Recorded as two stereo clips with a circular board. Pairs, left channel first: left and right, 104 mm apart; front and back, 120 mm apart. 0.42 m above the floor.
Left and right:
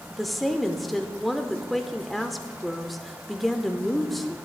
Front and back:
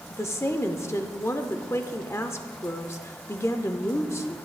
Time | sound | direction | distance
0.1 | a woman speaking | straight ahead | 0.7 m